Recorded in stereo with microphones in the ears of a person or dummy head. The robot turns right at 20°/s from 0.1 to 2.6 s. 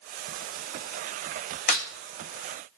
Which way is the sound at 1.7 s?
50° left (ahead or behind).